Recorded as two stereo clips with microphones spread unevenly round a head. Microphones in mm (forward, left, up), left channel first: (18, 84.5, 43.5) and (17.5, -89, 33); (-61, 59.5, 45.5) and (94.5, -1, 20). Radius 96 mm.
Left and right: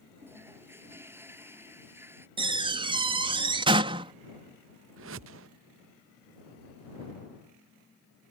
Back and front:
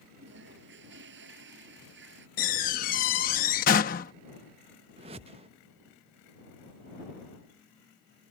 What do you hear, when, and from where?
0.2 s a toilet flushing: 15° right
2.4 s a door slam: 155° right
5.0 s a whoosh: 85° right